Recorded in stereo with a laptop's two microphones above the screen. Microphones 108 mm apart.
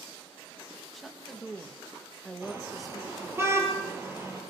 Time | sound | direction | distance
0.9 | a woman speaking | centre (ahead or behind) | 1.3 m
2.4 | a car horn | 25° right (ahead or behind) | 9.5 m